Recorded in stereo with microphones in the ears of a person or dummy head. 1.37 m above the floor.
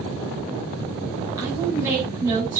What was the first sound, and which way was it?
A woman speaking, 15° right (ahead or behind).